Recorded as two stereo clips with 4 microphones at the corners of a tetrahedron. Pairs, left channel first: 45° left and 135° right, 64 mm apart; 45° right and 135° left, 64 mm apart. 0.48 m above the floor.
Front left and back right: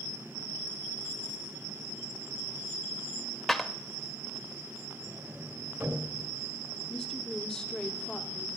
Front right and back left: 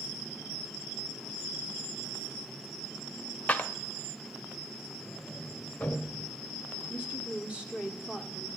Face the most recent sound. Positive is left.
turn(degrees=105)